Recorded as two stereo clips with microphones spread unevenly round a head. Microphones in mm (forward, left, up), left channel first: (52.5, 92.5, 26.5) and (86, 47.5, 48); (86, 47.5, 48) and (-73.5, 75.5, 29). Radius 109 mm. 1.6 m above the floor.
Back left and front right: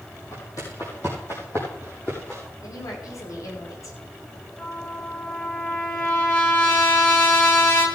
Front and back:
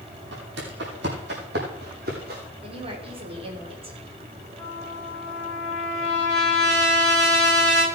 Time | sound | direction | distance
0.3 | footsteps | 155° right | 4 m
2.6 | a woman speaking | 115° left | 5.5 m
4.6 | a trumpet | 80° left | 10 m